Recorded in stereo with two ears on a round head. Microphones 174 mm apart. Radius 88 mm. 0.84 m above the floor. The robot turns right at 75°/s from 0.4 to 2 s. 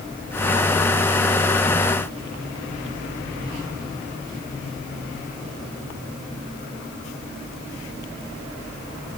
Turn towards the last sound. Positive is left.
No sound to turn to.